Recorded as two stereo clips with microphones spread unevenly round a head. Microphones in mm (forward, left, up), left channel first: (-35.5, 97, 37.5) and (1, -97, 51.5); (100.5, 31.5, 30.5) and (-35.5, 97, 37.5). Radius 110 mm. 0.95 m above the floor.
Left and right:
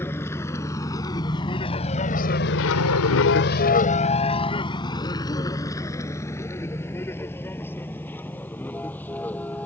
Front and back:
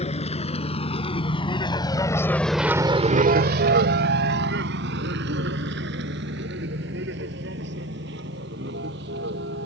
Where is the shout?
I don't hear a shout.